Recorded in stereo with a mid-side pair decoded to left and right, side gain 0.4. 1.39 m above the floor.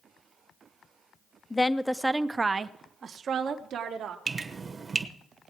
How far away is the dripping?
About 1.2 m.